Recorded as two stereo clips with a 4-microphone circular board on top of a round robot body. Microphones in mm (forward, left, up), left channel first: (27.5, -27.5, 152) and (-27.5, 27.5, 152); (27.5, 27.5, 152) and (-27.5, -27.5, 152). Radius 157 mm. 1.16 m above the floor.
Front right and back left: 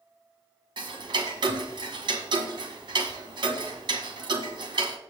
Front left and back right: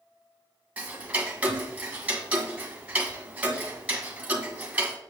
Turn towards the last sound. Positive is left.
turn(degrees=150)